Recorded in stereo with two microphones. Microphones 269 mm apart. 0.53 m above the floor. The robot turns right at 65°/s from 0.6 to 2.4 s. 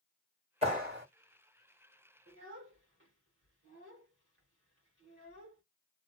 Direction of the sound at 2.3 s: 55° right (ahead or behind).